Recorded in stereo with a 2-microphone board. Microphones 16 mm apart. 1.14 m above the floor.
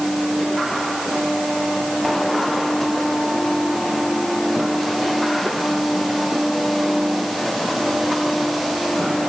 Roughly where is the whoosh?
No whoosh in this recording.